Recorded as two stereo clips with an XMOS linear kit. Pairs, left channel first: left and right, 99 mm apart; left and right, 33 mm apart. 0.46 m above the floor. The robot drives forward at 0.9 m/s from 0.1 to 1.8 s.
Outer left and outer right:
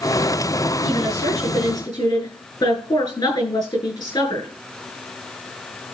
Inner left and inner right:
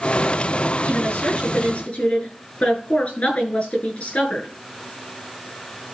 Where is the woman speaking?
45° left (ahead or behind), 9 m; by 4.5 s 50° left (ahead or behind), 8 m.